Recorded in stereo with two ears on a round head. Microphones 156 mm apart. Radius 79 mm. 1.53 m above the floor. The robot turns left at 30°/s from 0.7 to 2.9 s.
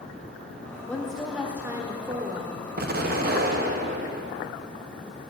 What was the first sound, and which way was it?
A woman speaking, 10° left.